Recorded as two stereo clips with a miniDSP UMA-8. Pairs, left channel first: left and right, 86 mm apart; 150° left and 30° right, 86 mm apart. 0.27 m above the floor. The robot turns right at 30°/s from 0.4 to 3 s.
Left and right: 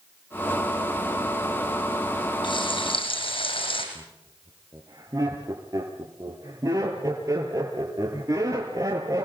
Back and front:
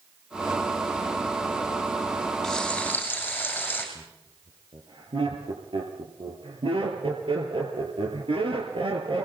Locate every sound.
2.4 s frying: 65° left, 6.5 m; by 3.9 s 80° left, 6.5 m
4.0 s laughter: 40° right, 5.5 m